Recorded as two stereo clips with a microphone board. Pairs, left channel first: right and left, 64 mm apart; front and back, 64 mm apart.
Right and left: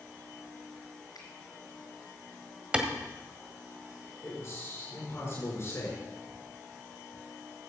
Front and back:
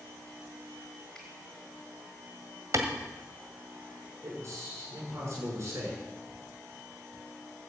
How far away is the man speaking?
About 7 m.